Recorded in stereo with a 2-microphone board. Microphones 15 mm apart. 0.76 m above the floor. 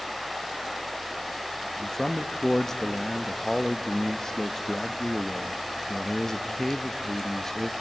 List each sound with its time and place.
1.8 s a man speaking: 35° left (ahead or behind), 0.6 m